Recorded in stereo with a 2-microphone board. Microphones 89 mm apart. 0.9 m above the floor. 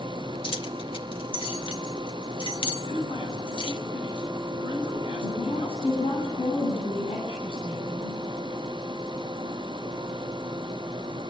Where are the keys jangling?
70° left (ahead or behind), 1.7 m.